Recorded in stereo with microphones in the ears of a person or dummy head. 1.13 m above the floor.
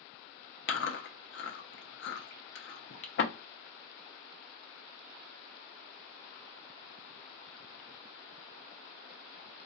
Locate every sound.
0.7 s chewing: 60° left (ahead or behind), 0.5 m